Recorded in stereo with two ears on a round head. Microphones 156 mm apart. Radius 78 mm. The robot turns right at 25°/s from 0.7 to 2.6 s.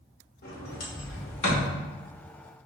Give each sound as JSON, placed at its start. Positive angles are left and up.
{"t": 0.4, "sound": "a sliding door", "side_deg": 55, "distance_m": 1.3}